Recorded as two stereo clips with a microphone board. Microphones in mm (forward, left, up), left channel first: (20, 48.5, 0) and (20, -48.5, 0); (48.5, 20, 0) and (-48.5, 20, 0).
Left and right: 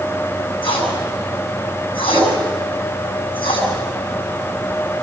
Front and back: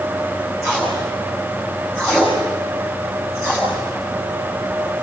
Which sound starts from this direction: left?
Tape being pulled, at 0.6 s.